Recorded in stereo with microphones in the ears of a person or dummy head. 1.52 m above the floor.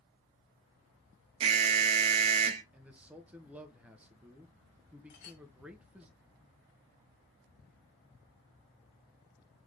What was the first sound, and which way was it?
An alarm, 30° right (ahead or behind).